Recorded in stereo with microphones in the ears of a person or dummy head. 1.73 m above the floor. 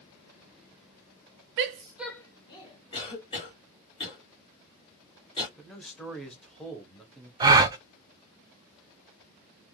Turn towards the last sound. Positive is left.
turn(degrees=-20)  # may be behind; listen again after turning